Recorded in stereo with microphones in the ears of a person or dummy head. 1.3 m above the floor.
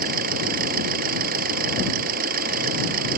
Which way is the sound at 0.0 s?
55° right (ahead or behind).